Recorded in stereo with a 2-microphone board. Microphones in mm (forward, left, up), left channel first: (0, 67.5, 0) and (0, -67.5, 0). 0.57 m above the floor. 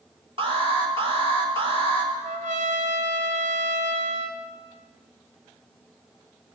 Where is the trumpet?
75° right (ahead or behind), 1.6 m.